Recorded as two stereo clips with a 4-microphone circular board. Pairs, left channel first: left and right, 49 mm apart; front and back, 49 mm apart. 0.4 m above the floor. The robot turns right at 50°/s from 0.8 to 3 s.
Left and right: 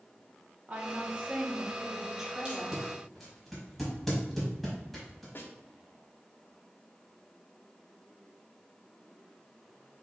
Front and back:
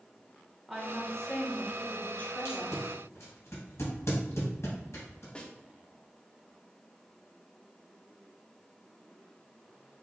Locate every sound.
0.7 s a woman speaking: 85° right, 0.8 m; by 2.8 s 10° left, 0.8 m
2.5 s tape being pulled: 20° right, 1.8 m; by 5.2 s 5° left, 1.8 m
5.3 s a snare drum: 65° left, 0.6 m